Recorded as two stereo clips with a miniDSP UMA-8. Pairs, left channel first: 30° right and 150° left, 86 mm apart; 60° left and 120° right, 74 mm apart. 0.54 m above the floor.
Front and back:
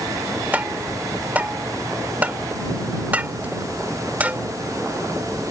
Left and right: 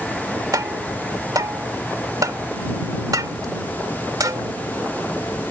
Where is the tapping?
140° right.